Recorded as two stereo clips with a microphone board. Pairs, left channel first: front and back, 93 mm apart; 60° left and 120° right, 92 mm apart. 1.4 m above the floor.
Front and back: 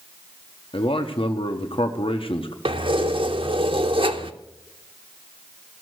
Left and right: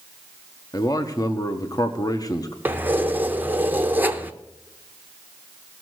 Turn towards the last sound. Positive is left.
turn(degrees=170)